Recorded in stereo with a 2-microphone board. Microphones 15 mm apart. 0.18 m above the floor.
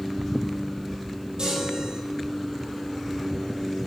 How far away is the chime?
About 5 m.